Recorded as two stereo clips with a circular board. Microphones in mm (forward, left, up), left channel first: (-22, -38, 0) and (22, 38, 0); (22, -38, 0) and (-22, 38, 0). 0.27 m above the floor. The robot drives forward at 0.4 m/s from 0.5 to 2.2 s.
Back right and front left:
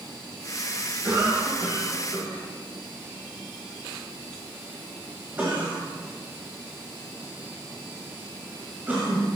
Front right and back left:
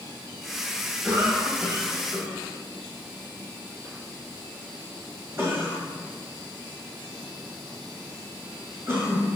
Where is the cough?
80° left, 1.8 m; by 9.3 s 105° left, 1.8 m.